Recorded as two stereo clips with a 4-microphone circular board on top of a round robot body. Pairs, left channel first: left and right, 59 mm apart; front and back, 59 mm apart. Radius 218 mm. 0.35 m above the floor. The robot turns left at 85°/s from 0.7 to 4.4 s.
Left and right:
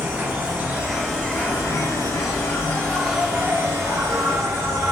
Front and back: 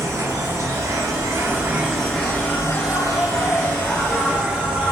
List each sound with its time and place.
0.0 s an insect: 155° right, 0.9 m; by 4.9 s 110° right, 0.9 m